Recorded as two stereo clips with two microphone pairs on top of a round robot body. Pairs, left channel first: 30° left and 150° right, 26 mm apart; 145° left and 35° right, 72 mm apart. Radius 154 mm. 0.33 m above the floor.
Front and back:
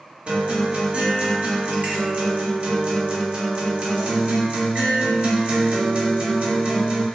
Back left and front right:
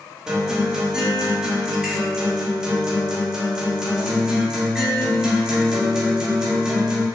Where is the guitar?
125° right, 1.3 m.